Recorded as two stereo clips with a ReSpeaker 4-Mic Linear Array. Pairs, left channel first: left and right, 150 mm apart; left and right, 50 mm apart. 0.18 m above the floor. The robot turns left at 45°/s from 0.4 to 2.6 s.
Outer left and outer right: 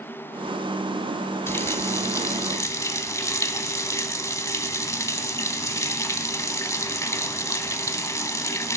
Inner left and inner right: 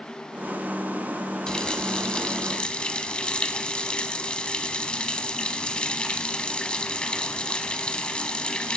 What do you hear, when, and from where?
1.5 s a running tap: 15° left (ahead or behind), 0.7 m; by 8.8 s 20° left (ahead or behind), 0.7 m